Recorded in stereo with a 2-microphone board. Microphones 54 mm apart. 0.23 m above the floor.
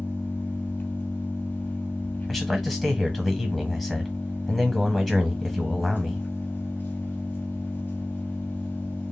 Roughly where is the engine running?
Left.